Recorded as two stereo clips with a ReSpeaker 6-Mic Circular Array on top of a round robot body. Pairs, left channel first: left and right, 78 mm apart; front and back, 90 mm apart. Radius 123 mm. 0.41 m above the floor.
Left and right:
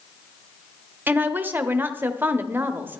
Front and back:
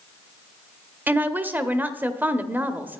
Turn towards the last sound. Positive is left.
turn(degrees=-130)